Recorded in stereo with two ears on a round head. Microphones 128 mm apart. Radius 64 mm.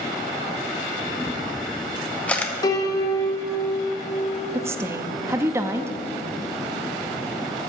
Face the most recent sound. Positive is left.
turn(degrees=-20)  # may be behind; listen again after turning